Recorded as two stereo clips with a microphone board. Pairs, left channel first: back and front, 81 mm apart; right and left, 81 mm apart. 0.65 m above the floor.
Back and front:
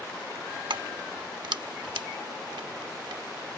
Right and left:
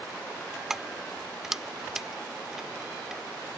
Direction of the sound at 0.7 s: 5° left.